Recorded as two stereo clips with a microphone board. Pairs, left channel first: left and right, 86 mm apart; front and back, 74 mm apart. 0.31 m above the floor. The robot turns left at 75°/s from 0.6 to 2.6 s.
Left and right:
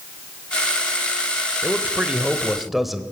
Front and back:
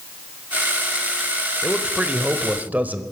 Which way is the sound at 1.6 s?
100° right.